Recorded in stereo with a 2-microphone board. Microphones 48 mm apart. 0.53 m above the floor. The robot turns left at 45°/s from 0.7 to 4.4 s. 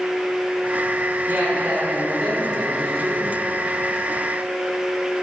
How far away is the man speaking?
About 2 m.